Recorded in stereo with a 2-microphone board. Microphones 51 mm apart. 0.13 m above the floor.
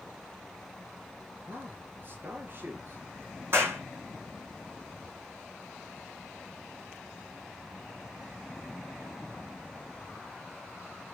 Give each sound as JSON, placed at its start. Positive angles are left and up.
{"t": 1.4, "sound": "a man speaking", "side_deg": -40, "distance_m": 2.0}
{"t": 3.5, "sound": "a clap", "side_deg": -50, "distance_m": 5.0}